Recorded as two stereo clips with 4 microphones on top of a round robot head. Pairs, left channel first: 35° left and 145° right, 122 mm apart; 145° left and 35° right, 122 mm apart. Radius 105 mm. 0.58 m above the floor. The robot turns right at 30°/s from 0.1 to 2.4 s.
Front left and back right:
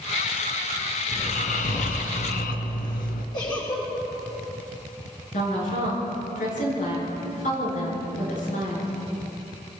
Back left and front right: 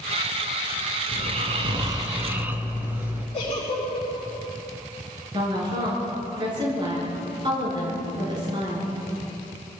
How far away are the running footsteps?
I don't hear running footsteps.